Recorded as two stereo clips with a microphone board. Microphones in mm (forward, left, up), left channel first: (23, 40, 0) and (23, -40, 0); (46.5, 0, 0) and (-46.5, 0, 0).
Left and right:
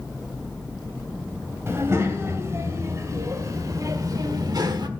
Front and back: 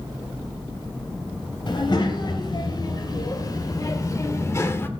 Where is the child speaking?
35° right, 3 m; by 4.9 s 65° right, 1.3 m.